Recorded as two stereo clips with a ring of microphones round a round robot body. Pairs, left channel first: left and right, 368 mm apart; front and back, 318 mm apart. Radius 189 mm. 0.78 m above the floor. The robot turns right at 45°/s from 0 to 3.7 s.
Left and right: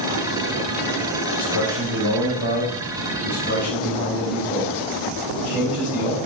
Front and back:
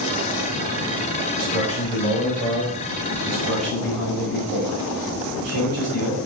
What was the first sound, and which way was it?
A man speaking, 55° left.